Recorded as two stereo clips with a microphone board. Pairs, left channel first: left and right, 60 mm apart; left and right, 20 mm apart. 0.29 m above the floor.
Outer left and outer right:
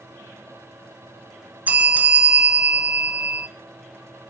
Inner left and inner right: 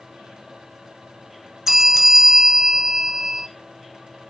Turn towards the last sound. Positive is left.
turn(degrees=-25)  # may be behind; listen again after turning